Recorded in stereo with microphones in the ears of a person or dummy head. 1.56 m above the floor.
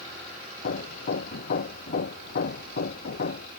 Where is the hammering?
50° left (ahead or behind).